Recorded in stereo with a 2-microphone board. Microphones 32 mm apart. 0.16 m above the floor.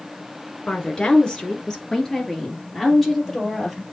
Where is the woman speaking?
30° left (ahead or behind), 1.8 m; by 3.8 s centre (ahead or behind), 3 m.